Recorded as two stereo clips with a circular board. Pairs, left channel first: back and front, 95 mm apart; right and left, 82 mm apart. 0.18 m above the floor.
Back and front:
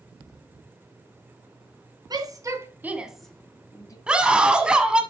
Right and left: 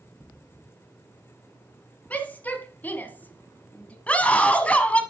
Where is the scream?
55° right, 1.1 m.